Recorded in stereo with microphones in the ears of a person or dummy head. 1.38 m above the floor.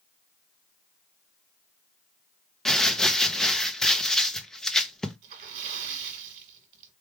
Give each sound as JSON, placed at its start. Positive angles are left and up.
{"t": 2.6, "sound": "crumpling", "side_deg": 5, "distance_m": 0.7}
{"t": 5.2, "sound": "a splash", "side_deg": -40, "distance_m": 1.5}